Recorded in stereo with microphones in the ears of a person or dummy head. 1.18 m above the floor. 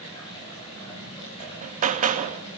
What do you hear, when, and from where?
0.0 s running water: 20° left (ahead or behind), 9.5 m
1.4 s hammering: 45° right (ahead or behind), 1.1 m